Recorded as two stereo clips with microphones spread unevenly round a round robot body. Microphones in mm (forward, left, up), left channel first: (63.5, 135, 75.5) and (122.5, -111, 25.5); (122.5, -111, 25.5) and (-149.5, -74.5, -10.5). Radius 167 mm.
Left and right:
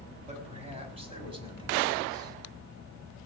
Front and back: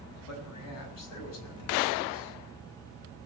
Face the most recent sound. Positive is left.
turn(degrees=-5)